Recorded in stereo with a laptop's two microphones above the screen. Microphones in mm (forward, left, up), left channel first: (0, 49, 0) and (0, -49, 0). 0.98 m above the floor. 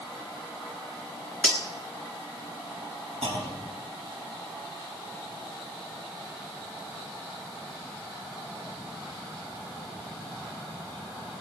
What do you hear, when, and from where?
1.4 s cutlery clinking: 15° left (ahead or behind), 1.1 m
3.2 s a clunk: 80° right, 3.5 m